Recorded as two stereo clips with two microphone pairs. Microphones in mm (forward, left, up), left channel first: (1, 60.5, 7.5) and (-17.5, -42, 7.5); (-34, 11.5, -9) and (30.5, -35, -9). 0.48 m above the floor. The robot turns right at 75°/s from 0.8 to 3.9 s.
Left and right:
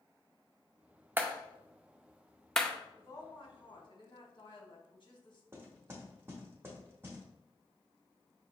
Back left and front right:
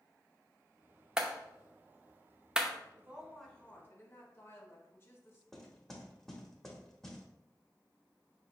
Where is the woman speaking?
20° left, 1.4 m; by 5.4 s 95° left, 1.4 m.